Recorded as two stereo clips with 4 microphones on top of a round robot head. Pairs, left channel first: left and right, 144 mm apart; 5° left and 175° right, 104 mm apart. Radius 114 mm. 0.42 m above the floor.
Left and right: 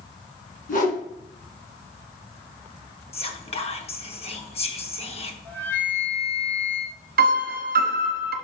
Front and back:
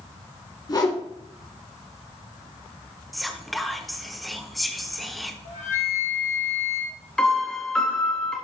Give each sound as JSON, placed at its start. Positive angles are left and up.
{"t": 0.7, "sound": "a whoosh", "azimuth_deg": 60, "distance_m": 2.0}
{"t": 3.1, "sound": "whispering", "azimuth_deg": 95, "distance_m": 1.3}
{"t": 5.5, "sound": "a flute", "azimuth_deg": 15, "distance_m": 2.5}
{"t": 7.2, "sound": "a piano", "azimuth_deg": -80, "distance_m": 0.8}